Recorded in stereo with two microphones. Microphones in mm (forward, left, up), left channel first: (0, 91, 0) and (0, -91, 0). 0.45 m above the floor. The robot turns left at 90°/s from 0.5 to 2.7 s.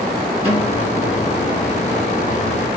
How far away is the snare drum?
About 3 m.